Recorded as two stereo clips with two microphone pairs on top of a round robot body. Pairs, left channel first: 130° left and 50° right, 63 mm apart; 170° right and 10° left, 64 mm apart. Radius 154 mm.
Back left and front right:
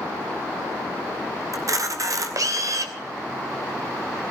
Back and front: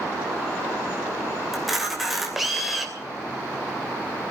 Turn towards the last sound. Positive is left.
turn(degrees=-80)